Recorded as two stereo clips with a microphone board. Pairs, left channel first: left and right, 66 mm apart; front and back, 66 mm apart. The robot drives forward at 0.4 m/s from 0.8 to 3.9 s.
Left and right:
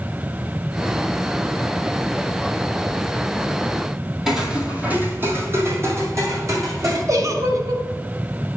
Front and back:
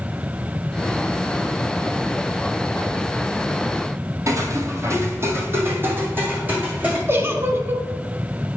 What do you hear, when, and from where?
4.3 s footsteps: 170° right, 1.1 m; by 7.0 s 120° right, 2.5 m
7.1 s a giggle: 125° right, 1.0 m